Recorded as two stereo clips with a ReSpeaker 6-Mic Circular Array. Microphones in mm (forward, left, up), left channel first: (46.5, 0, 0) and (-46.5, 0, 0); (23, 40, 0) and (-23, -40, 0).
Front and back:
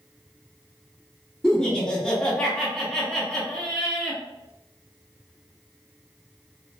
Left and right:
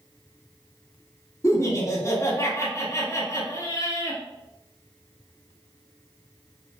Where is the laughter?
75° left, 1.1 m.